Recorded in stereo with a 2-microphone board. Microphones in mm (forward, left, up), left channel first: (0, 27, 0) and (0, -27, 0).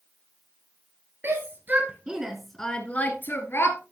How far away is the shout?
About 2.5 m.